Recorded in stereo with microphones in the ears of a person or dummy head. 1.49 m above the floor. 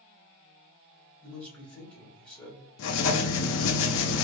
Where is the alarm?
I don't hear an alarm.